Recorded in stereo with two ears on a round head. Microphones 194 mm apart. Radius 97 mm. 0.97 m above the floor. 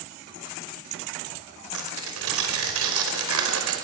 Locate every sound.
1.7 s tearing paper: 75° right (ahead or behind), 5 m